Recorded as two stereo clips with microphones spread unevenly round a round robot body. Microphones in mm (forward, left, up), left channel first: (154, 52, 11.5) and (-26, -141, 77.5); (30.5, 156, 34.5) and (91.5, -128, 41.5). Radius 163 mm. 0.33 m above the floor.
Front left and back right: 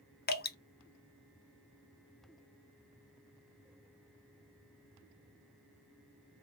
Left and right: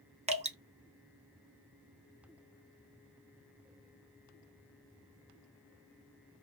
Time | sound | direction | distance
0.3 | dripping | 10° right | 0.8 m